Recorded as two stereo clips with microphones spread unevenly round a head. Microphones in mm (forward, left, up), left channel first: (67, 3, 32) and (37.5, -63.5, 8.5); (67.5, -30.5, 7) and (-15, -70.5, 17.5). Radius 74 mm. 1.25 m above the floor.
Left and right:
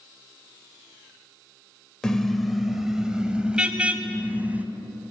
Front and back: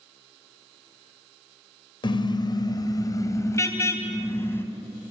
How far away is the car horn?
About 2 m.